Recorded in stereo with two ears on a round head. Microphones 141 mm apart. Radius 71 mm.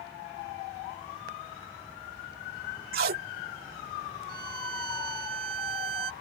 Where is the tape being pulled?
65° right (ahead or behind).